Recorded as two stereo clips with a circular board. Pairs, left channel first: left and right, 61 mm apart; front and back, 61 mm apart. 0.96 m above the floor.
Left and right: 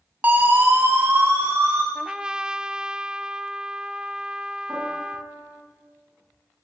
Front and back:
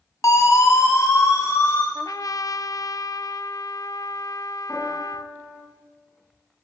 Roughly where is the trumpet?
Ahead.